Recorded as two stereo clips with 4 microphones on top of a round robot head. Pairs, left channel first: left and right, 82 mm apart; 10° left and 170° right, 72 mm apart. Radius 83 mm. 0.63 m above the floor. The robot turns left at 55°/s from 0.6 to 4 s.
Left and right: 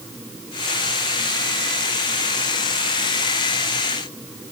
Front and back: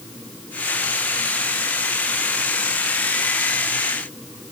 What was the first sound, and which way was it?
Only background noise.